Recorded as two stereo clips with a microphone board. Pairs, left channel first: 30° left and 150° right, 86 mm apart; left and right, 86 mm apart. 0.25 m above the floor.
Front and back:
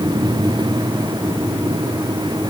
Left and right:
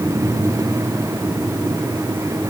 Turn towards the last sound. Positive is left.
No sound to turn to.